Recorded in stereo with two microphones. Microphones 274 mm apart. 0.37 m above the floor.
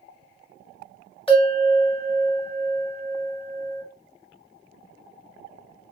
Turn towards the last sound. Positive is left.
turn(degrees=20)  # may be behind; listen again after turning